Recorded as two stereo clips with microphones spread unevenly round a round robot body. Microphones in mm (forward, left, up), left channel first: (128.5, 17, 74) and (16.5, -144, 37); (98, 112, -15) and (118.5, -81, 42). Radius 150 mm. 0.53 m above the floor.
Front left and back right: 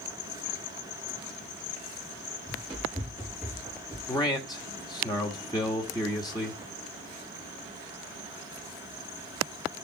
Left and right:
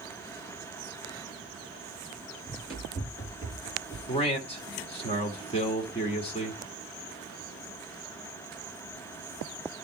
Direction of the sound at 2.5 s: 145° left.